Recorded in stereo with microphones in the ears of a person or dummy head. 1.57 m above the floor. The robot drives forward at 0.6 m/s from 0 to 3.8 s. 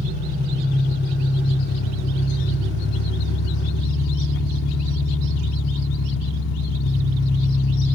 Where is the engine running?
45° left (ahead or behind), 3 m; by 7.9 s 65° left (ahead or behind), 2 m.